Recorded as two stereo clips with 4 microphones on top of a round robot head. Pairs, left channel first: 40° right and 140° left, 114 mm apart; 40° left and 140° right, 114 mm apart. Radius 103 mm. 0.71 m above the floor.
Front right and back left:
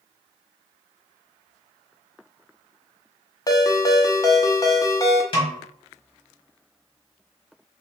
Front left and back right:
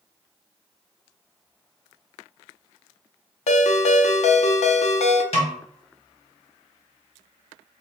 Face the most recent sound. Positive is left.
turn(degrees=5)